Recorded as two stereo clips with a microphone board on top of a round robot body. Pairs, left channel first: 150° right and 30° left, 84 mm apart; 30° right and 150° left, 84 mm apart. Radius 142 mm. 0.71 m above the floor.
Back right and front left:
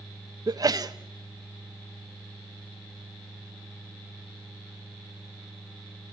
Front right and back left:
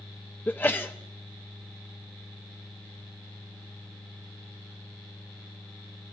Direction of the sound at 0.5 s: 30° left.